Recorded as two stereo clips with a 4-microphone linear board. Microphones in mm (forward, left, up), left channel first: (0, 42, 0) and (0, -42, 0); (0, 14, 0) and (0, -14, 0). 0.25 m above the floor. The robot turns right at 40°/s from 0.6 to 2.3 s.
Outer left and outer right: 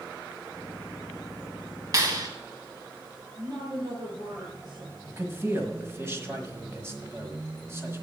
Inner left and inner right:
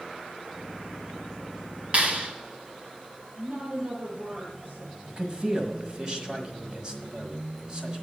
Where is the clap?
40° right (ahead or behind), 1.8 m; by 2.3 s 50° right (ahead or behind), 1.8 m.